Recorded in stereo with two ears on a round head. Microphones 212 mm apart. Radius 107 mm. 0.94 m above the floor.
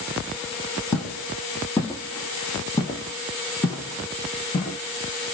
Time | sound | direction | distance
0.9 | footsteps | 5° left (ahead or behind) | 1.2 m